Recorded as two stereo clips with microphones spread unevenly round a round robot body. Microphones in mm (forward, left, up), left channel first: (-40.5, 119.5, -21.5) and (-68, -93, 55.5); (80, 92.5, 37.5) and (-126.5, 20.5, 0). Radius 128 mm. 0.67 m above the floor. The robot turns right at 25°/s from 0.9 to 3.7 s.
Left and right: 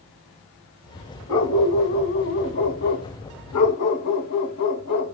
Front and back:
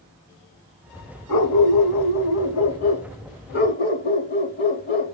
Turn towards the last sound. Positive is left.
turn(degrees=60)